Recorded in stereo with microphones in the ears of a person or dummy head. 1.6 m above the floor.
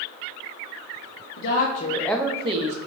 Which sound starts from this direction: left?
A woman speaking, at 1.4 s.